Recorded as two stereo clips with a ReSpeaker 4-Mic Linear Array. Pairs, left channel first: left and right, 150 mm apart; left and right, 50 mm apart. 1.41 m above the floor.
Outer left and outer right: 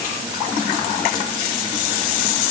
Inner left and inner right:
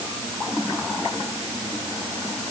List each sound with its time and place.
Only background noise.